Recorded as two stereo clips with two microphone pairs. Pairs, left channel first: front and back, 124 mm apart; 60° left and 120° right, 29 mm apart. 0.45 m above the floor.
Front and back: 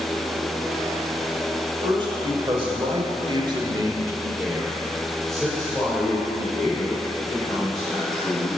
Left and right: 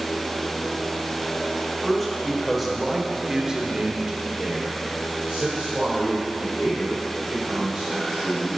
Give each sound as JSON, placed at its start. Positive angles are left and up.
{"t": 1.8, "sound": "a man speaking", "azimuth_deg": 140, "distance_m": 1.6}